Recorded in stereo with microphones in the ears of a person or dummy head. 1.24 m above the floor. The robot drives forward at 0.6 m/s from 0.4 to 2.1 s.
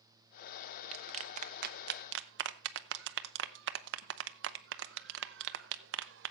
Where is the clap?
35° right (ahead or behind), 1.2 m; by 6.3 s 70° right (ahead or behind), 0.8 m.